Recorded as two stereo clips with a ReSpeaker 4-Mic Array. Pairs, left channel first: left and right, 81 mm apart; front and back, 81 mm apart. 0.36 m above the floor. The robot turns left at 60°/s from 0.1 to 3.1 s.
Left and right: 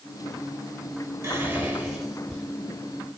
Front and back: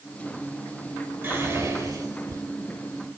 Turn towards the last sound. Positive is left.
turn(degrees=120)